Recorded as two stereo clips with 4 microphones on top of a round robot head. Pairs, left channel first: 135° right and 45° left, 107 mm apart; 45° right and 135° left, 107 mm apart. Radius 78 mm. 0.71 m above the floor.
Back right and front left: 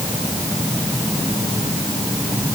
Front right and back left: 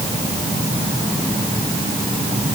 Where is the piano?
I don't hear a piano.